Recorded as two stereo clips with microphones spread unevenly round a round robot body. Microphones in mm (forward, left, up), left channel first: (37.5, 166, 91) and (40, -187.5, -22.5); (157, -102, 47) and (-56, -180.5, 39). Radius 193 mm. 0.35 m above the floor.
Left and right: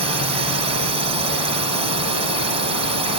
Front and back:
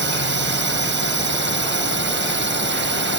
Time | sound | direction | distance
0.0 | a drone | 145° right | ?